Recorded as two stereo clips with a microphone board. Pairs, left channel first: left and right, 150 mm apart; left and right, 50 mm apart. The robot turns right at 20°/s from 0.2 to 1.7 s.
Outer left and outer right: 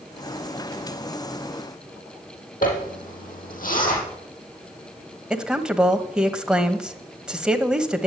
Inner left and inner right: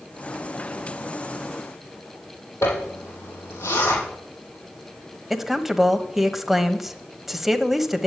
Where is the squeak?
I don't hear a squeak.